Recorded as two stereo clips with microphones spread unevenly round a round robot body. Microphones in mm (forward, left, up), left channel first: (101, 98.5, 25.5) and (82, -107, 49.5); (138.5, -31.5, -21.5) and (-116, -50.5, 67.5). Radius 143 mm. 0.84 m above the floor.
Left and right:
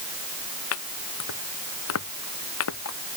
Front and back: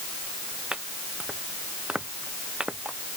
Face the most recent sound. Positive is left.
turn(degrees=100)